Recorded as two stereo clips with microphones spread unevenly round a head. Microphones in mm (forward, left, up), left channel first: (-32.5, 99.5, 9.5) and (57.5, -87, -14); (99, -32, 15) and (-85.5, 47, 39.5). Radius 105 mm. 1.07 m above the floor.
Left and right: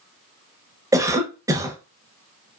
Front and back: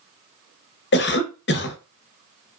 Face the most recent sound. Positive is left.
turn(degrees=10)